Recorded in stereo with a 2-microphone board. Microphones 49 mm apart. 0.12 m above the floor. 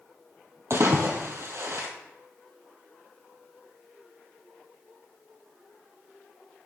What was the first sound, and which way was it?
A splash, 65° right (ahead or behind).